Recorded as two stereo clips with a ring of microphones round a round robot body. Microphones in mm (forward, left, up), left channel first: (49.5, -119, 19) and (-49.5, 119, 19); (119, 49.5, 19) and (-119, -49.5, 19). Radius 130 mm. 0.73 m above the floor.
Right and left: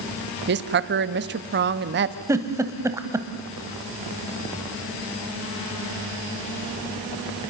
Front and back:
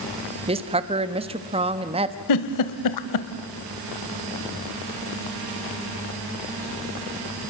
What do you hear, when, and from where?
0.5 s a woman speaking: 140° left, 1.0 m
2.3 s a giggle: 35° left, 1.2 m